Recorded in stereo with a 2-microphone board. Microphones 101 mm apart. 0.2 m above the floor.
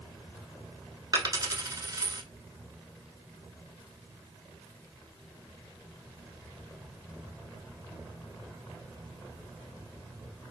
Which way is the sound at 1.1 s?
35° right (ahead or behind).